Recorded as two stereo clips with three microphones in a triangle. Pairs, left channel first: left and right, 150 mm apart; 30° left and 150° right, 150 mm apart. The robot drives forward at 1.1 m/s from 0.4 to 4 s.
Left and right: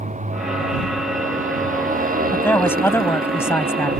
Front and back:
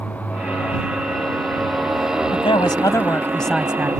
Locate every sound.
0.0 s a motorcycle: 50° right; by 4.0 s 80° right
2.3 s a man speaking: 20° left; by 3.9 s 145° left